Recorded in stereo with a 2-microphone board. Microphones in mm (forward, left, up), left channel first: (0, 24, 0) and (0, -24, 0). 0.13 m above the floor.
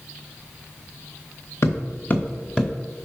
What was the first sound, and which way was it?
Footsteps, 55° left (ahead or behind).